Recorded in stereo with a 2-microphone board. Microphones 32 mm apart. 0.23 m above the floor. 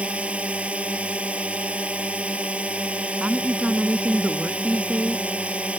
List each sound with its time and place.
0.0 s a drone: 40° right (ahead or behind)
3.2 s a woman speaking: 45° right (ahead or behind)